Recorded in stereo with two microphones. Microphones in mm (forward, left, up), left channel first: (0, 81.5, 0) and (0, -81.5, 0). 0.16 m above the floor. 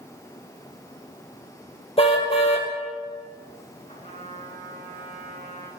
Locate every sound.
2.0 s a car horn: 35° left (ahead or behind), 2.5 m
3.9 s a trumpet: 40° left (ahead or behind), 9 m